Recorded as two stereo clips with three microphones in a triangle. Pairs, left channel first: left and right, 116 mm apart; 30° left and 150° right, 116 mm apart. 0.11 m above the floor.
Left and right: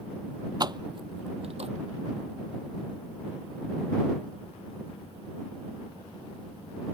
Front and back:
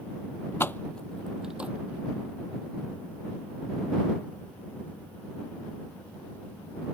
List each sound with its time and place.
0.6 s keys jangling: 40° right; by 1.7 s 75° right